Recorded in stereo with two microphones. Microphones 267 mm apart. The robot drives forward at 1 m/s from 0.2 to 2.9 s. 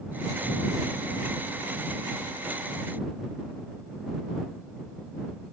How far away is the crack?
No crack in this recording.